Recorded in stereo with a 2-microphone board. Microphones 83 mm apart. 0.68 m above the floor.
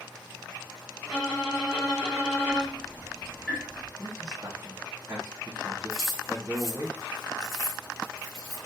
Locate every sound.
1.1 s a violin: 5° right (ahead or behind), 1.9 m
2.5 s ticking: centre (ahead or behind), 1.1 m
4.0 s a man speaking: 35° right (ahead or behind), 1.2 m
5.9 s keys jangling: centre (ahead or behind), 1.2 m